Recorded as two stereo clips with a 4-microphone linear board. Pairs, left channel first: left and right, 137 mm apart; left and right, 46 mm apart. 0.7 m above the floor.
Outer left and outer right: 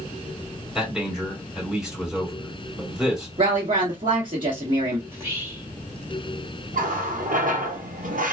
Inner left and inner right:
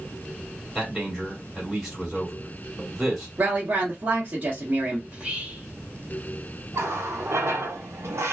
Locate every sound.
0.8 s a man speaking: 5° right (ahead or behind), 2.5 m
3.4 s a woman speaking: 40° right (ahead or behind), 1.1 m
5.1 s whispering: 20° right (ahead or behind), 1.8 m
6.7 s a running tap: 80° right, 0.8 m